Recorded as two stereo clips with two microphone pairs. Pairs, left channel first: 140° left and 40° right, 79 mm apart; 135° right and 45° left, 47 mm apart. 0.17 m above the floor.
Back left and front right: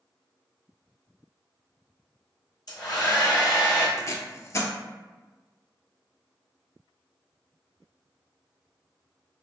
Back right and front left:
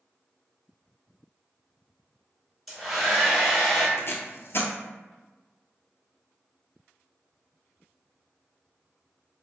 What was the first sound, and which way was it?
A hair dryer, 140° left.